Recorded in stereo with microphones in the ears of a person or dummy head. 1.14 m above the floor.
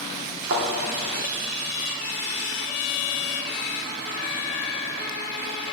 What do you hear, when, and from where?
0.5 s a thud: 60° right (ahead or behind), 1.2 m